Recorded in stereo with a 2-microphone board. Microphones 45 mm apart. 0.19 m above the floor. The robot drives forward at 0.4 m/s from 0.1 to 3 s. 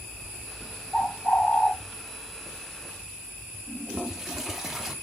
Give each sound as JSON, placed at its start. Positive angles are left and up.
{"t": 0.9, "sound": "a bird", "side_deg": 20, "distance_m": 1.6}
{"t": 3.7, "sound": "a toilet flushing", "side_deg": -5, "distance_m": 0.9}